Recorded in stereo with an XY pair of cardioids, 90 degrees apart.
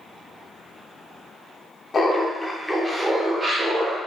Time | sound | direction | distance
1.9 | laughter | 45° left | 0.6 m